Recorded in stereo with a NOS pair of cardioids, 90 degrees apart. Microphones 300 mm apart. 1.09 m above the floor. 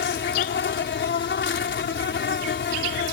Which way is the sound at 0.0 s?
45° left.